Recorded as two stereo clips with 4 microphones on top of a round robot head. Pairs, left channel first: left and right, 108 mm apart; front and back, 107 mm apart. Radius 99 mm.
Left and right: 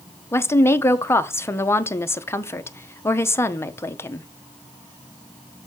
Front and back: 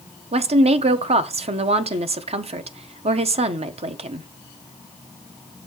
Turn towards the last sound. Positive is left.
turn(degrees=155)